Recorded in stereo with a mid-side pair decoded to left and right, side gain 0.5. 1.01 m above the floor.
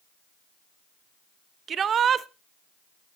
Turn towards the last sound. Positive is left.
turn(degrees=-50)